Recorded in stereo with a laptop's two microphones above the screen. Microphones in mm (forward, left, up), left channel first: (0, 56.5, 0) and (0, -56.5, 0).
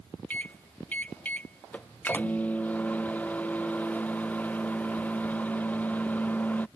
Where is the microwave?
15° left (ahead or behind).